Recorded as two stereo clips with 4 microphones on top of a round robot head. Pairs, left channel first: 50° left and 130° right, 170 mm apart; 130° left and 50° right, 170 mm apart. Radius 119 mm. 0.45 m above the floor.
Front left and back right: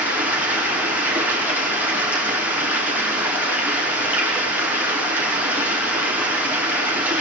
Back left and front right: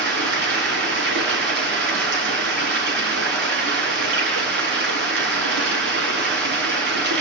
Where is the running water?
50° right, 6.5 m.